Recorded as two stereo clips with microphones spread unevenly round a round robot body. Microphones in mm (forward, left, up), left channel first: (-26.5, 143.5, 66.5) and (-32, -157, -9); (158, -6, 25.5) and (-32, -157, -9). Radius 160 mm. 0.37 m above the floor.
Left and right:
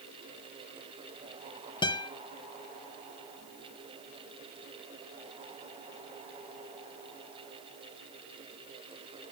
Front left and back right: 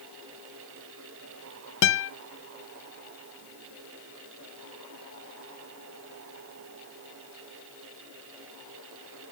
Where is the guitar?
5° left, 0.5 m.